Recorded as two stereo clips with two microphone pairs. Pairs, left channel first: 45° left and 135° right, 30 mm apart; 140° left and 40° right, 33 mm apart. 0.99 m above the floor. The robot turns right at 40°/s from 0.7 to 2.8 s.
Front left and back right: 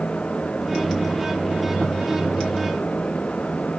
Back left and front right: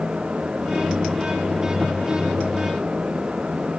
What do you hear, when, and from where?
Only background noise.